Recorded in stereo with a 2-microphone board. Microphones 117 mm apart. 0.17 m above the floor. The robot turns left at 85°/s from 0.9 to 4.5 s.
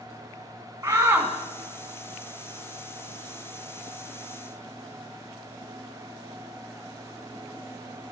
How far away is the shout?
About 1.3 m.